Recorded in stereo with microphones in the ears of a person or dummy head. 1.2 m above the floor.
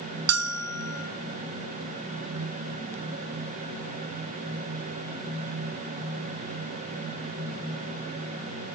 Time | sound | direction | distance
0.3 | a bell | 70° right (ahead or behind) | 1.3 m